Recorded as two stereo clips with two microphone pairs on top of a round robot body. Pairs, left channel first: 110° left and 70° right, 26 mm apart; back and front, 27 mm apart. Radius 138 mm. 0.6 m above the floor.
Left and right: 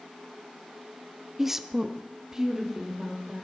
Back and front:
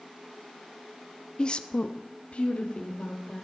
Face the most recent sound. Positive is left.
turn(degrees=-145)